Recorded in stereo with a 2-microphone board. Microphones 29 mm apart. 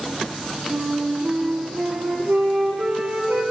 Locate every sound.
0.7 s a flute: 70° right (ahead or behind), 1.8 m